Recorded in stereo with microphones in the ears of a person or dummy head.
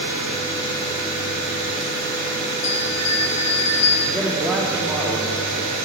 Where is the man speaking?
10° left (ahead or behind), 2.5 m.